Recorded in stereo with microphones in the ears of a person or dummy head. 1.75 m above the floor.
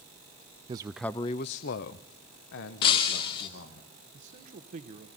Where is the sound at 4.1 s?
40° right (ahead or behind), 1.2 m.